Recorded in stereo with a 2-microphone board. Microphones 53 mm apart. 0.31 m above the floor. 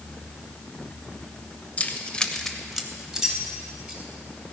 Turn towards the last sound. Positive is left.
turn(degrees=-15)  # may be behind; listen again after turning